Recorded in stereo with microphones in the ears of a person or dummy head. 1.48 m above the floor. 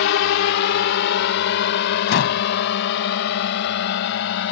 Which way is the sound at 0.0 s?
75° left (ahead or behind).